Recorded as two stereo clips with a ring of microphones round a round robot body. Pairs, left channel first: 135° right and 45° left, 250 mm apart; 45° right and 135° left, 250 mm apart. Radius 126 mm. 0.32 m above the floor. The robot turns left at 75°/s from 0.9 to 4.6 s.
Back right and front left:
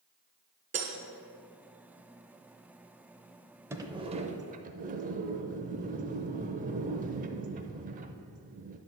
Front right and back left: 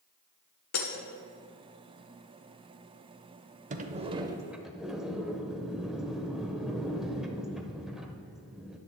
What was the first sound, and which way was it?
Breaking glass, 20° right.